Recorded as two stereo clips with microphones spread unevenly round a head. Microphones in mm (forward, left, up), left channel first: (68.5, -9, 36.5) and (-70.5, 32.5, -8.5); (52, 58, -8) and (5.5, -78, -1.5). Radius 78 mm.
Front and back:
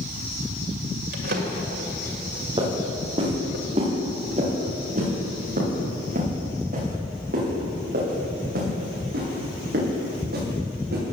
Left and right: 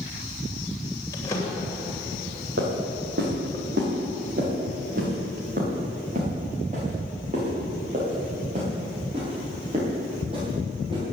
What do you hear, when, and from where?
1.1 s a drawer: 145° left, 2.5 m
2.6 s footsteps: 135° right, 6 m; by 11.0 s 170° right, 9.5 m